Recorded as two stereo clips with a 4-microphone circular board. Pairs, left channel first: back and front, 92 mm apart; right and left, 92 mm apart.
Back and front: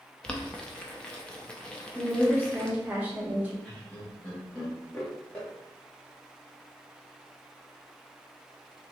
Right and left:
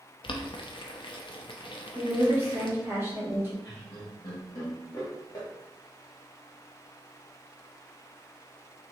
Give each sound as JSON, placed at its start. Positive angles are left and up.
{"t": 0.2, "sound": "boiling", "azimuth_deg": -100, "distance_m": 0.5}
{"t": 1.9, "sound": "a woman speaking", "azimuth_deg": 50, "distance_m": 0.9}
{"t": 3.6, "sound": "laughter", "azimuth_deg": -105, "distance_m": 1.0}